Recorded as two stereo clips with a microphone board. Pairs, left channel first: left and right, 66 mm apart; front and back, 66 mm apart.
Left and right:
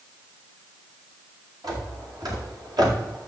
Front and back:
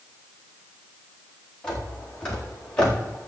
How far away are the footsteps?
About 5 m.